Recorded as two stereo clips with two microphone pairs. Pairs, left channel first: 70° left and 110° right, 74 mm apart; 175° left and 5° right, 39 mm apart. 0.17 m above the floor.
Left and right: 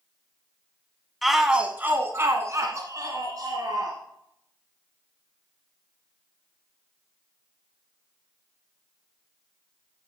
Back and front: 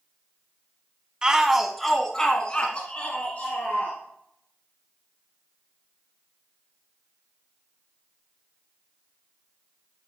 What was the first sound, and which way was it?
A shout, 25° right.